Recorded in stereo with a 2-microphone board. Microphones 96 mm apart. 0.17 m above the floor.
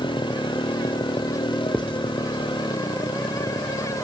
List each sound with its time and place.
0.0 s a motorcycle: 60° left (ahead or behind)
1.7 s writing: 10° left (ahead or behind)